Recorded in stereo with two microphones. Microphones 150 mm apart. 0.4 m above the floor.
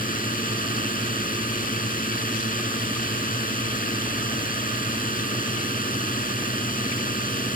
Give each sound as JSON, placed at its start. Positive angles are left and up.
{"t": 0.0, "sound": "a drone", "side_deg": 70}